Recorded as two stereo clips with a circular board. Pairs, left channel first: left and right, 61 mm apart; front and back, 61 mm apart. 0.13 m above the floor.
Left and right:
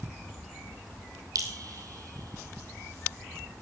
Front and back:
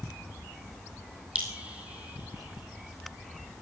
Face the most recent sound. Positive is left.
turn(degrees=-110)